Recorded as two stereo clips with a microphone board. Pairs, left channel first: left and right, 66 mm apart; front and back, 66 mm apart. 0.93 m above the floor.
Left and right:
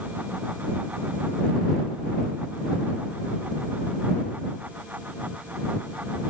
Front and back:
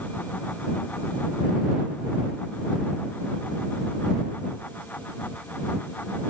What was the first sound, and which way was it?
Only background noise.